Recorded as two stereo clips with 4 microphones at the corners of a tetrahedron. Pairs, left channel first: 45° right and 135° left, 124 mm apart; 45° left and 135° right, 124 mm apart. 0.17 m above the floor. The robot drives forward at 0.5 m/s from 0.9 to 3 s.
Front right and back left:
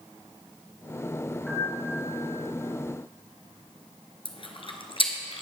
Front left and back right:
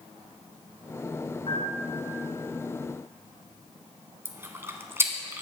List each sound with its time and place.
1.5 s a piano: 40° left, 2 m; by 2.1 s 50° left, 1.9 m
4.2 s chewing: 70° right, 1.0 m